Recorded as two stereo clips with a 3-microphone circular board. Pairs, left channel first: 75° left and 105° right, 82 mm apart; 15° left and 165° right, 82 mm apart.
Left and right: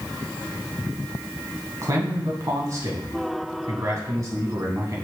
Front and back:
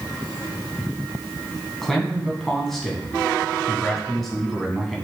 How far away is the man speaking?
About 2.5 m.